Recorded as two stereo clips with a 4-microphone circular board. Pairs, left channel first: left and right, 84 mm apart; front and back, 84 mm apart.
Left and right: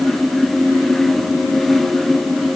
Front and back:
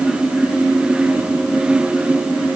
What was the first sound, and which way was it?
Only background noise.